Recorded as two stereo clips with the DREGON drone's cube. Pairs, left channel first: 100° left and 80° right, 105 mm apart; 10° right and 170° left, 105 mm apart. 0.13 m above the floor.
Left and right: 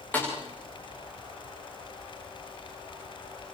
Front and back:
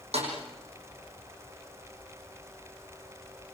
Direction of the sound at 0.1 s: 175° left.